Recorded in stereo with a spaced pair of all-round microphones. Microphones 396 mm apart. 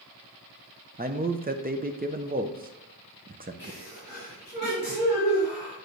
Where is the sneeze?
25° left (ahead or behind), 4 m.